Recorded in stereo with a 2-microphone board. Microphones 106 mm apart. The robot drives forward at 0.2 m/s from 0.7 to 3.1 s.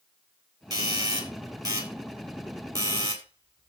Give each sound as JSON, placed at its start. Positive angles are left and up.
{"t": 0.7, "sound": "a doorbell", "side_deg": -35, "distance_m": 3.0}